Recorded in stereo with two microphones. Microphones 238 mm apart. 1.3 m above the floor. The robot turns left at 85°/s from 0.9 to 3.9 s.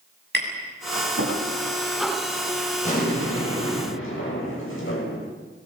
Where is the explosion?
150° left, 7 m; by 5.2 s 60° left, 7 m.